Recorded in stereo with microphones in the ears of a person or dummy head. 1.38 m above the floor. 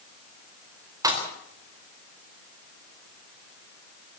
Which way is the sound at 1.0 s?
15° right (ahead or behind).